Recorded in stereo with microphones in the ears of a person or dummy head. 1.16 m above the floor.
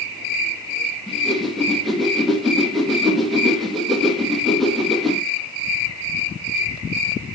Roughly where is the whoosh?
Centre.